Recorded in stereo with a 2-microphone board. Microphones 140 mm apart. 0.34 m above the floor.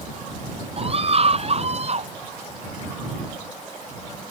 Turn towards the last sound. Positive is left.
turn(degrees=-50)  # may be behind; listen again after turning